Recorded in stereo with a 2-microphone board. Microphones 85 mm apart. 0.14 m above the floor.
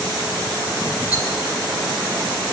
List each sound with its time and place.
1.1 s a rattle: 40° left (ahead or behind), 1.4 m